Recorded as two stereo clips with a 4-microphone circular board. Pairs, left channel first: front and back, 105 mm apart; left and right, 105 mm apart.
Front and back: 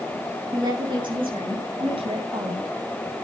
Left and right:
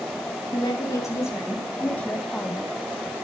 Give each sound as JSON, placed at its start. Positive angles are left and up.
{"t": 0.5, "sound": "a woman speaking", "azimuth_deg": 140, "distance_m": 3.5}